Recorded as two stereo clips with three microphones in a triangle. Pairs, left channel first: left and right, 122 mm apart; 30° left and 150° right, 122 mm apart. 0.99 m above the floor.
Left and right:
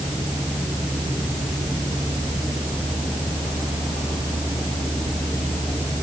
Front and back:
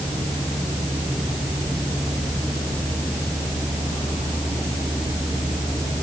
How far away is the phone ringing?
I don't hear a phone ringing.